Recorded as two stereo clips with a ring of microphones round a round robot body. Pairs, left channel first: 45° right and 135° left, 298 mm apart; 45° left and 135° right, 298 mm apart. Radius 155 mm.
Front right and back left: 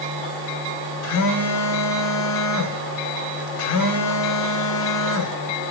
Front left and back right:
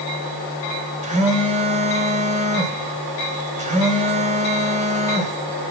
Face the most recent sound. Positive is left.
turn(degrees=-70)